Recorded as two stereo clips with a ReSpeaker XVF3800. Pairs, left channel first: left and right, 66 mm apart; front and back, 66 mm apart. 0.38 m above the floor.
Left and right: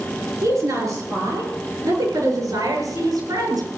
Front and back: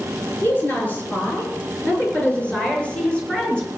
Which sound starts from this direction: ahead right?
A woman speaking, at 0.4 s.